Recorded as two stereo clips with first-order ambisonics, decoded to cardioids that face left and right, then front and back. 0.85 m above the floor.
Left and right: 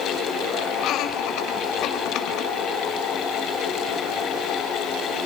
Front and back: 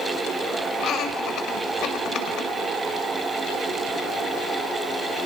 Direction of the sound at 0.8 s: 50° left.